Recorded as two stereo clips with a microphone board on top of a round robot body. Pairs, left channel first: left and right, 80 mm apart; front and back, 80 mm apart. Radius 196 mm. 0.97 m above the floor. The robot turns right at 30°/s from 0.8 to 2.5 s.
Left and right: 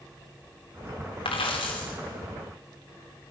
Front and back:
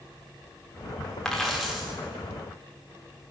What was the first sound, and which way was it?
A dropped coin, 85° left.